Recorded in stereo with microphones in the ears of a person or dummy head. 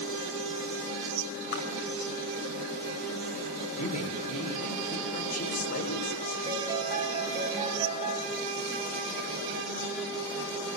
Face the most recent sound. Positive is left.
turn(degrees=-25)  # may be behind; listen again after turning